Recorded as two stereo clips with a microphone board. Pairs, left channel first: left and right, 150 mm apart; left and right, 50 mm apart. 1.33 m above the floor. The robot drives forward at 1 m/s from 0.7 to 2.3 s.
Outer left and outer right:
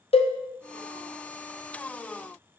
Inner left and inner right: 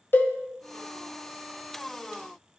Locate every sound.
0.1 s a cowbell: 40° left (ahead or behind), 0.6 m